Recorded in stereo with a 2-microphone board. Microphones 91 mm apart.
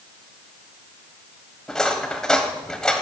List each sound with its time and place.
1.7 s cutlery clinking: 10° left (ahead or behind), 1.3 m